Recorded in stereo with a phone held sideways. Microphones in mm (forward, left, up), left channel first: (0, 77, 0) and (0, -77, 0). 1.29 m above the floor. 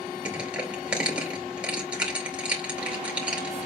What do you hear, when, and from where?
0.2 s crushing: 5° right (ahead or behind), 2.5 m